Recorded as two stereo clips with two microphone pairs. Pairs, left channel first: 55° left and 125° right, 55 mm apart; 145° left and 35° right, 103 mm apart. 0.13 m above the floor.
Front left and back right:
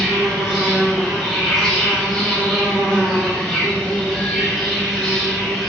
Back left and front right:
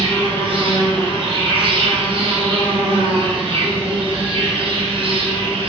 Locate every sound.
0.0 s an insect: 25° right, 0.9 m